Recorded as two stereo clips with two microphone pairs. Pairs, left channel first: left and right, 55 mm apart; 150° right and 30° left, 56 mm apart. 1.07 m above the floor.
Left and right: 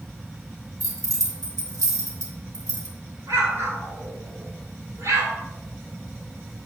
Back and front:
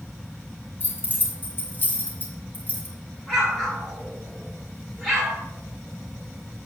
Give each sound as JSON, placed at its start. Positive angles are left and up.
{"t": 0.8, "sound": "keys jangling", "azimuth_deg": -100, "distance_m": 3.0}
{"t": 3.3, "sound": "an explosion", "azimuth_deg": -65, "distance_m": 3.5}